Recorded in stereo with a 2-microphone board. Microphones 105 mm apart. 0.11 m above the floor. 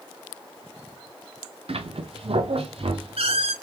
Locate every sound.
1.7 s a squeak: 70° right (ahead or behind), 0.6 m